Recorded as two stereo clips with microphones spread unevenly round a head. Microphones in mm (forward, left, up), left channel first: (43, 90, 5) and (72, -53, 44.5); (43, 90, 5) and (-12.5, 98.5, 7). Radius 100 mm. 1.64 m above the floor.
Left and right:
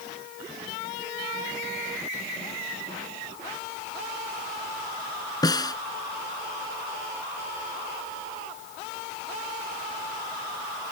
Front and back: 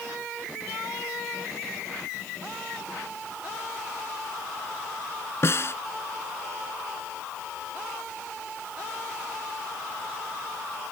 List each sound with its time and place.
5.4 s a snare drum: 35° left